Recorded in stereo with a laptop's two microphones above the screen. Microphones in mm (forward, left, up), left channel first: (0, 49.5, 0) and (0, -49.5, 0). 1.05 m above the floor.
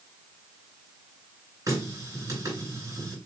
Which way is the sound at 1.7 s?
35° right (ahead or behind).